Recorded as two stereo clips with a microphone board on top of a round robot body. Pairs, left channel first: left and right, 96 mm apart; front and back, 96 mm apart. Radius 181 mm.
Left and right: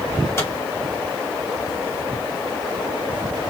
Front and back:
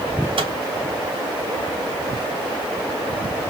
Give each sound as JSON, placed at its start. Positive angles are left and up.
{"t": 0.4, "sound": "a microwave", "azimuth_deg": 150, "distance_m": 2.5}